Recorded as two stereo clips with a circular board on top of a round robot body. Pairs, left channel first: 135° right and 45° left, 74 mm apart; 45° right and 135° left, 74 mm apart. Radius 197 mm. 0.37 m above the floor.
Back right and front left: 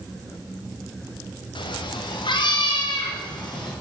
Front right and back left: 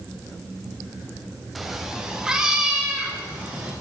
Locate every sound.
1.6 s a cat meowing: 140° right, 0.6 m; by 3.7 s 150° right, 2 m